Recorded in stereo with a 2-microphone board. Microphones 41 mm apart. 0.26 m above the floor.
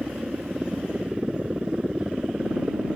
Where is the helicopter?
20° right (ahead or behind).